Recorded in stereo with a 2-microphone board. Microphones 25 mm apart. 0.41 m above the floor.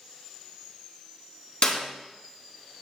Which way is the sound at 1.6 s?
55° left (ahead or behind).